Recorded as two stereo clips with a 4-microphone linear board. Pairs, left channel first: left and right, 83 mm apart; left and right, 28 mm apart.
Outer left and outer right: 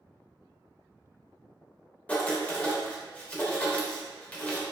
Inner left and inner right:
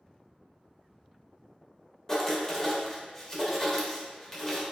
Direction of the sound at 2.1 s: 20° left (ahead or behind).